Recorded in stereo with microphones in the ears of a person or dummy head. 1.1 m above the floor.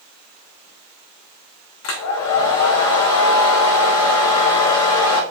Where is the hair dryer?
80° left, 0.8 m.